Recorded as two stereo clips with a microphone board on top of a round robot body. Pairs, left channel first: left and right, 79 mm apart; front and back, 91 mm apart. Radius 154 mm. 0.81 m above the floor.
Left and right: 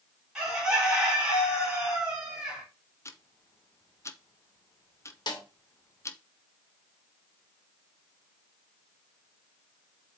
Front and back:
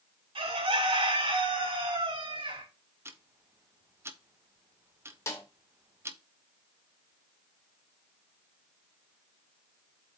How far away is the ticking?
About 1.3 m.